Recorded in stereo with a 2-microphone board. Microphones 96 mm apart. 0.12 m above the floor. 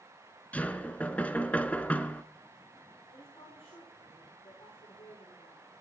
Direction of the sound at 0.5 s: 15° left (ahead or behind).